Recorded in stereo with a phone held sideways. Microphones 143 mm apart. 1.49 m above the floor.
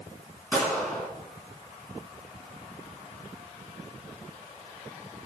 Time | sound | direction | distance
0.5 | a gunshot | 15° left (ahead or behind) | 3.5 m